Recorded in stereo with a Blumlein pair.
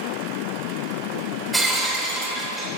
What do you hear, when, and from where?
1.5 s breaking glass: 5° right, 3.5 m